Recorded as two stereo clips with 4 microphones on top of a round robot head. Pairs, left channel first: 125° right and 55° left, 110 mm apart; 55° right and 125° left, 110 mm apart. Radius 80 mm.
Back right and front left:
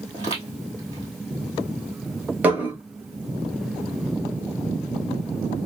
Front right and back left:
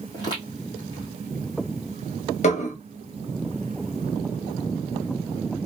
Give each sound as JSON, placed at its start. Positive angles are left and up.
{"t": 0.1, "sound": "footsteps", "azimuth_deg": 0, "distance_m": 1.5}
{"t": 2.4, "sound": "dishes clattering", "azimuth_deg": -25, "distance_m": 0.8}